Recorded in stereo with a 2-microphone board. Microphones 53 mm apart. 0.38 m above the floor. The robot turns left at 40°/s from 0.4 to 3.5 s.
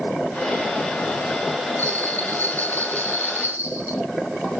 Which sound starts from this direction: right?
A bell, at 1.8 s.